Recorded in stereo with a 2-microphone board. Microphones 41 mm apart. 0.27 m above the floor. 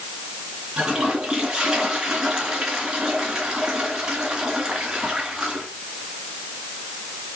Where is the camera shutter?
I don't hear a camera shutter.